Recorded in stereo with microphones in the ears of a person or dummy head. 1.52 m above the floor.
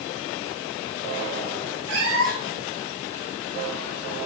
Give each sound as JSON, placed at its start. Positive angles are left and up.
{"t": 1.9, "sound": "a cat meowing", "side_deg": -65, "distance_m": 4.5}